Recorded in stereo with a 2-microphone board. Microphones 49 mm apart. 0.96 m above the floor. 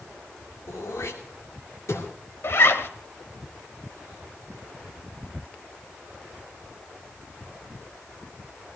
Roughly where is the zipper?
Left.